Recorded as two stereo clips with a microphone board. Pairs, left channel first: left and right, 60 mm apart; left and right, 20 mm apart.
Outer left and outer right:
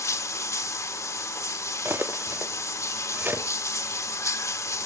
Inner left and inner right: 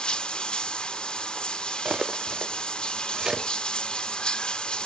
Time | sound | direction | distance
0.0 | running water | 60° left (ahead or behind) | 1.2 m
1.9 | cutlery clinking | 35° right (ahead or behind) | 0.7 m